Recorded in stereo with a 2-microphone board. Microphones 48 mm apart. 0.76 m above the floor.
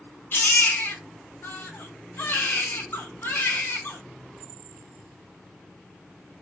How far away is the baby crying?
About 0.6 m.